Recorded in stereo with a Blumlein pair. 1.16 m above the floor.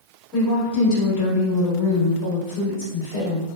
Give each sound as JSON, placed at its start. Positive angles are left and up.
{"t": 0.3, "sound": "a woman speaking", "azimuth_deg": 45, "distance_m": 1.8}